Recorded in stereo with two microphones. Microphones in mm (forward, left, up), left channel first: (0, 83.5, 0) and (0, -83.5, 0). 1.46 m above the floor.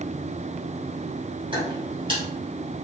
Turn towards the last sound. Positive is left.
turn(degrees=-30)  # may be behind; listen again after turning